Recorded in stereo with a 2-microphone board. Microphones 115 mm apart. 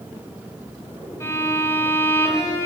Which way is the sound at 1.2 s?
25° left (ahead or behind).